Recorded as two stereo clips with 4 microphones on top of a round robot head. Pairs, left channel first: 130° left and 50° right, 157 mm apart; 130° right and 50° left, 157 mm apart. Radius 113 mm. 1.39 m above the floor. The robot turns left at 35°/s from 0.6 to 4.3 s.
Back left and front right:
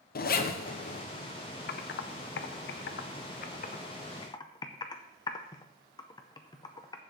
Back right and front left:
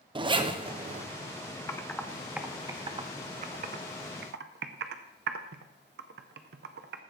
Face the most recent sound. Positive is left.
turn(degrees=65)